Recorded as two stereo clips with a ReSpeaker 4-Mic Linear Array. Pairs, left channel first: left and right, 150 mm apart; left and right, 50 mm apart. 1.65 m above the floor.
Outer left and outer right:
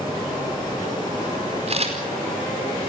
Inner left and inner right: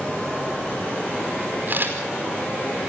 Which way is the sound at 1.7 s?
45° right (ahead or behind).